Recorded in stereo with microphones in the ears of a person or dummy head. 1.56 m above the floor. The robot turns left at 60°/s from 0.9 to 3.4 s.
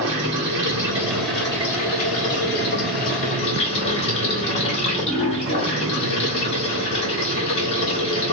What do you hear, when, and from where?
0.0 s running water: 160° right, 1.7 m; by 8.3 s 50° left, 1.7 m